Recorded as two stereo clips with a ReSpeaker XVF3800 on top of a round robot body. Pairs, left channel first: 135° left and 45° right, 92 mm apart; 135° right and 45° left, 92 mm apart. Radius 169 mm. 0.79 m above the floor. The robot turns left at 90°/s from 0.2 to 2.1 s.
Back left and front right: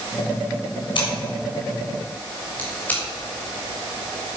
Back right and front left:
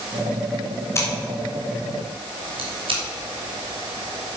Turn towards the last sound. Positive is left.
turn(degrees=60)